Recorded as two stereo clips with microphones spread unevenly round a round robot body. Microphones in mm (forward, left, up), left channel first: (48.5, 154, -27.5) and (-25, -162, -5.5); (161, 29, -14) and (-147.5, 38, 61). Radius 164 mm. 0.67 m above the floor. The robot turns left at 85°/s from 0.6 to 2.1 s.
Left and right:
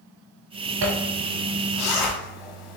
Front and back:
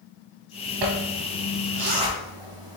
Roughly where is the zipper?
Behind right.